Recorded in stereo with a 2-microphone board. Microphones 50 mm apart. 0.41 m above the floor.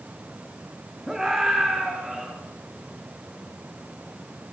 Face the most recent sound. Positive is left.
turn(degrees=-20)  # may be behind; listen again after turning